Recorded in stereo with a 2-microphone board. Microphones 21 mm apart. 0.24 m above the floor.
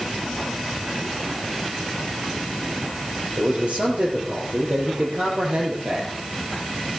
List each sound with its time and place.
3.4 s a man speaking: 75° right (ahead or behind), 4.5 m